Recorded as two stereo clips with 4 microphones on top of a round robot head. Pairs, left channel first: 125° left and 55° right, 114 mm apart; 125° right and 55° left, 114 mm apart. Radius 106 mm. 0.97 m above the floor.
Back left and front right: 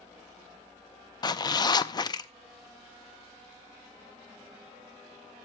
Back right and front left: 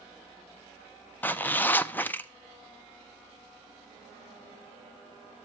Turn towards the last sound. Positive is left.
turn(degrees=165)